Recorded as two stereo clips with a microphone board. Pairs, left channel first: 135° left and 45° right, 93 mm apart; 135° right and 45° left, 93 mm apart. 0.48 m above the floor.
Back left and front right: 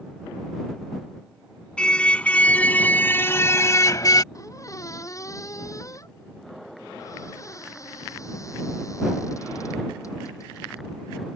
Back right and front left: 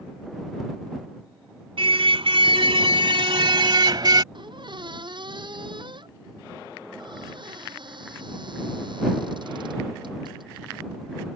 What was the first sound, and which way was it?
A car horn, 55° left.